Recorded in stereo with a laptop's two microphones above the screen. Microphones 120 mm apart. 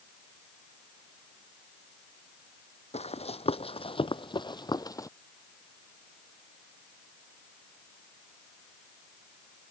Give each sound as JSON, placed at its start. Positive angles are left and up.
{"t": 2.9, "sound": "running footsteps", "side_deg": 60}